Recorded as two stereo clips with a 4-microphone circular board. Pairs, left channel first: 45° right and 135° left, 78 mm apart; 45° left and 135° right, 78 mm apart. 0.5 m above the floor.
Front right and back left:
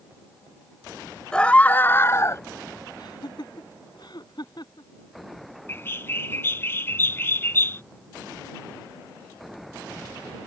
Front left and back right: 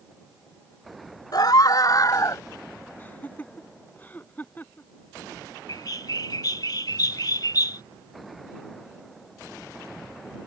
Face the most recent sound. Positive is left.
turn(degrees=15)